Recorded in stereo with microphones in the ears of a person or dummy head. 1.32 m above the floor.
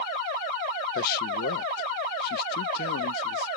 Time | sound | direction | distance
0.9 | a man speaking | 50° left (ahead or behind) | ?